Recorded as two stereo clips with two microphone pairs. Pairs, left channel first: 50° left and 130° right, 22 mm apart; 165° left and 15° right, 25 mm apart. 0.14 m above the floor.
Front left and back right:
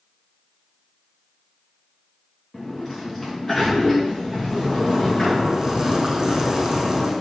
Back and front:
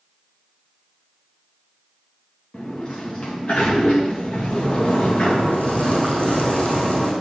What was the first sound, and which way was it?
A sliding door, 125° left.